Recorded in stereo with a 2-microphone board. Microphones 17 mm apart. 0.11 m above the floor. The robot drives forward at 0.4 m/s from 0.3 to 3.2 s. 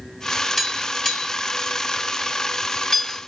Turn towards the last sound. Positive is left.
turn(degrees=15)  # may be behind; listen again after turning